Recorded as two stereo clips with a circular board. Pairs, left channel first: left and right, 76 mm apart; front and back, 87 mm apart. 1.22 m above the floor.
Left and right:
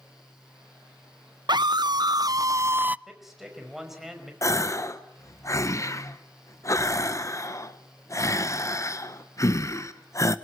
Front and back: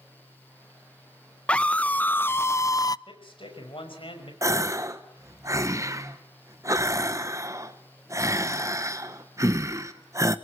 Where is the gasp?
130° left, 1.2 m.